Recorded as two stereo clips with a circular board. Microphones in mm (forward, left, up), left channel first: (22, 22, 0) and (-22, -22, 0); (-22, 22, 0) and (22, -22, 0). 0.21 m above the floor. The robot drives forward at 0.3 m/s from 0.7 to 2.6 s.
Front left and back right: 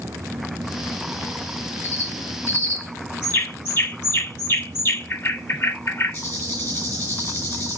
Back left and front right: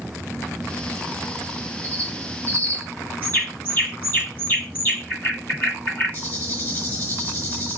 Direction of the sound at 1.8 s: 75° left.